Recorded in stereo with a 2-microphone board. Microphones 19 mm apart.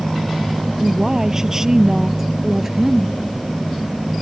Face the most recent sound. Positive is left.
turn(degrees=-15)  # may be behind; listen again after turning